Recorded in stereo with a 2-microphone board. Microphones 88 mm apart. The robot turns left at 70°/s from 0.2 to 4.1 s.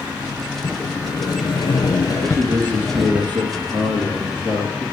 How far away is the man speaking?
About 3.5 m.